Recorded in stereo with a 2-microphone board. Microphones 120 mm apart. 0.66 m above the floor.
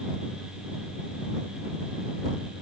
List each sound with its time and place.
Only background noise.